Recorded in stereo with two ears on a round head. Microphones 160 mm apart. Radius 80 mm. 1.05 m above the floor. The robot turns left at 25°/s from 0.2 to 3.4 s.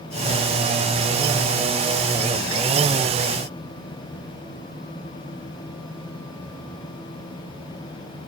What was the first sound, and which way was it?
Only background noise.